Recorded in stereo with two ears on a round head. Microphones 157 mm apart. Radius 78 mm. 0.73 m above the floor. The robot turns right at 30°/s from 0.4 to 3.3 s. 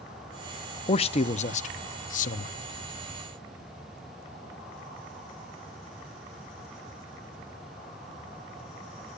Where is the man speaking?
45° left, 0.7 m; by 2.6 s 95° left, 0.7 m.